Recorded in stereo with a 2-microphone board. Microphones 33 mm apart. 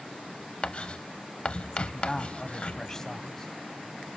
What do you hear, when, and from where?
0.6 s writing: 35° left (ahead or behind), 0.5 m
1.9 s a man speaking: 15° left (ahead or behind), 1.3 m